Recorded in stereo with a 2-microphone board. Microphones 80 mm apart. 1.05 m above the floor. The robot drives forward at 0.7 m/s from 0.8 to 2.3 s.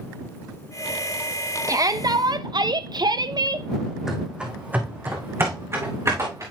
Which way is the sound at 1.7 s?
40° right (ahead or behind).